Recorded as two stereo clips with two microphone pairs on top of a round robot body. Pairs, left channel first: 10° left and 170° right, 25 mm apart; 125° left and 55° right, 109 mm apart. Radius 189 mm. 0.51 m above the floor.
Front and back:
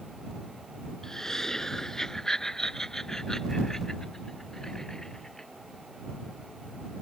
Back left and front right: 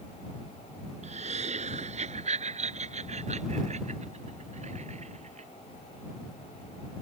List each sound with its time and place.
1.0 s laughter: 60° right